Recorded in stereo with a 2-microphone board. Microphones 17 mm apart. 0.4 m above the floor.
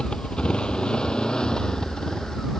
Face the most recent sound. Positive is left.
turn(degrees=50)  # may be behind; listen again after turning